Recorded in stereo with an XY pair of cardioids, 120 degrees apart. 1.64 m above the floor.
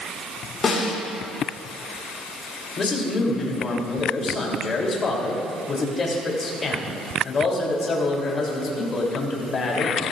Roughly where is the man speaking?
Ahead left.